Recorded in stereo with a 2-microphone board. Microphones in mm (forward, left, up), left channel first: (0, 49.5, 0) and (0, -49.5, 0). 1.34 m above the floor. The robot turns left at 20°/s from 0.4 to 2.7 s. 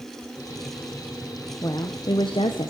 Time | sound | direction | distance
1.6 | a woman speaking | 35° left (ahead or behind) | 0.6 m